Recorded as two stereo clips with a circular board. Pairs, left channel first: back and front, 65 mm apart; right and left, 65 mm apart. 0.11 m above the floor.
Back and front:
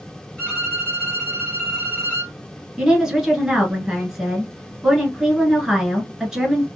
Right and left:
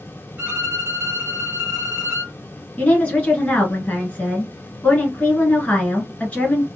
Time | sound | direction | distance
0.4 | a violin | 125° left | 1.8 m
2.8 | a woman speaking | 70° right | 1.2 m